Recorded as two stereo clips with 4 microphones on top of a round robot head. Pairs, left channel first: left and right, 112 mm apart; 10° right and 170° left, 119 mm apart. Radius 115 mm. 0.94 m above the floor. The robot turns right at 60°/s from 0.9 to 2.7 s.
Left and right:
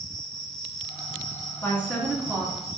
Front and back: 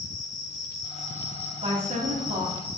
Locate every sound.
0.0 s an insect: 10° left, 0.9 m; by 2.8 s 120° left, 0.9 m
1.6 s a woman speaking: 160° left, 2 m; by 2.8 s 135° right, 2 m